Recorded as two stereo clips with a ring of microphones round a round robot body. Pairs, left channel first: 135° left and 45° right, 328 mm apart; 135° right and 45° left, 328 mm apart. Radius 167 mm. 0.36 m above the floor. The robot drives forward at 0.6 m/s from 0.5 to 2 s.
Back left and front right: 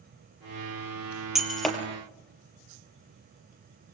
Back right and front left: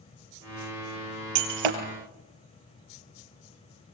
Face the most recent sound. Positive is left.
turn(degrees=50)